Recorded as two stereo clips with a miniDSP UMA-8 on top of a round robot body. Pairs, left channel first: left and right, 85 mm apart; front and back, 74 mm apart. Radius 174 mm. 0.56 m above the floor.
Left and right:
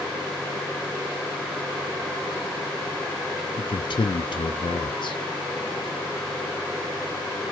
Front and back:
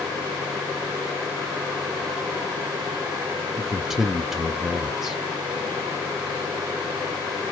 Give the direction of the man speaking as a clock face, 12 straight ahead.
9 o'clock.